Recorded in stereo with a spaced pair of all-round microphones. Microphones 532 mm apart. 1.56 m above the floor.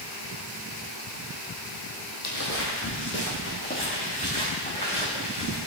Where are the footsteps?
30° left (ahead or behind), 3 m; by 5.6 s 10° left (ahead or behind), 6.5 m.